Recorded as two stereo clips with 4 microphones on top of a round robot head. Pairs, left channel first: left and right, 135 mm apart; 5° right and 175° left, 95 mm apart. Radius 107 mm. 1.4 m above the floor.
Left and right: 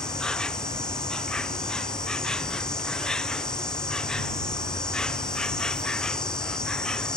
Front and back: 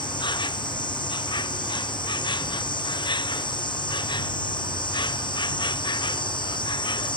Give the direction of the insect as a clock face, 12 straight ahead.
12 o'clock.